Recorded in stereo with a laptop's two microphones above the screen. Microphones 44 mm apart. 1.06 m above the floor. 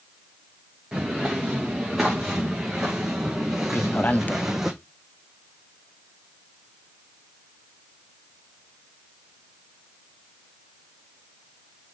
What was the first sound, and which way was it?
Footsteps, 5° right (ahead or behind).